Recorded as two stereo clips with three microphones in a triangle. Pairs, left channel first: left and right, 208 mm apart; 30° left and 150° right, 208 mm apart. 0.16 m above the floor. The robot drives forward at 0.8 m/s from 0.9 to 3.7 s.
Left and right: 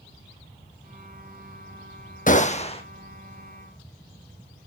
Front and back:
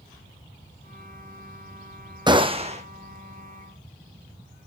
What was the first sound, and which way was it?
A gunshot, 140° left.